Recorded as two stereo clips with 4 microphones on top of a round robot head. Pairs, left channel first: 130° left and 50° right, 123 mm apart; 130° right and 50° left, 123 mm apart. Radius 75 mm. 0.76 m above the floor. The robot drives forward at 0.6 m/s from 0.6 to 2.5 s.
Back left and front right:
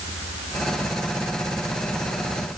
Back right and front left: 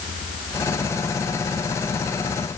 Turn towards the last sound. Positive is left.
No sound to turn to.